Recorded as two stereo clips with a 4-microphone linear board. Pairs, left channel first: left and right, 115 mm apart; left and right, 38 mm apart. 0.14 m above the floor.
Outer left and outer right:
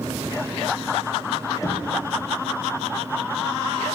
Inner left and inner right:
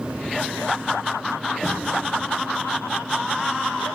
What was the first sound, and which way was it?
Knocking, 30° left (ahead or behind).